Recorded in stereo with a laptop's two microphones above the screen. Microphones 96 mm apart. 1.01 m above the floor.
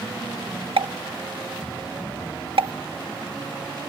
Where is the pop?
85° right.